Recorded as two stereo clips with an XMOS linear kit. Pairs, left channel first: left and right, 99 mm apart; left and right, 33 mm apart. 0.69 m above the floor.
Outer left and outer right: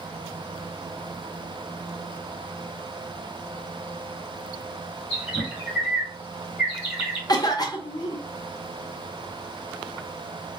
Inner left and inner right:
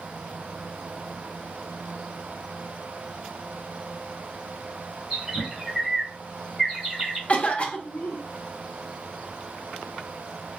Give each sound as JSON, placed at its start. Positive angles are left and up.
{"t": 5.1, "sound": "a bird", "side_deg": -15, "distance_m": 1.5}
{"t": 7.3, "sound": "a cough", "side_deg": 40, "distance_m": 0.6}